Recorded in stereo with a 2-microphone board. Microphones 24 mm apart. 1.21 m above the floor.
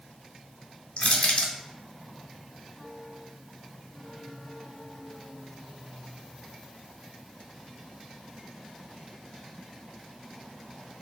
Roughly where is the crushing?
Left.